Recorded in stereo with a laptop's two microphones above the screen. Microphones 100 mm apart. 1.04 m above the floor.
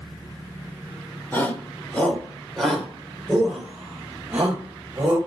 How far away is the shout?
About 3 m.